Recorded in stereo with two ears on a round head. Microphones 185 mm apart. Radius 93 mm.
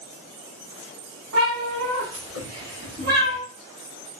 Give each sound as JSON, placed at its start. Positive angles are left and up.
{"t": 1.3, "sound": "a cat meowing", "side_deg": -85, "distance_m": 2.0}